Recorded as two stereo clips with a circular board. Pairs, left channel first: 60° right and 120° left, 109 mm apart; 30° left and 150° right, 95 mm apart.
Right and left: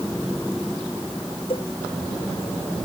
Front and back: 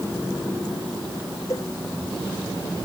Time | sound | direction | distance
1.5 | a cowbell | 25° right | ?